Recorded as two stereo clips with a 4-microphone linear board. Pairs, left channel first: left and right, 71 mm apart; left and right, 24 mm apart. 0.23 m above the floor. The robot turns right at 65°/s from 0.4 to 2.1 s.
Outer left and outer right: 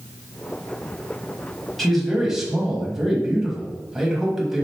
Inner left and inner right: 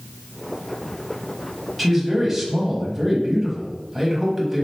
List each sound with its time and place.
1.8 s a man speaking: 5° left (ahead or behind), 1.0 m; by 4.7 s 5° right (ahead or behind), 1.0 m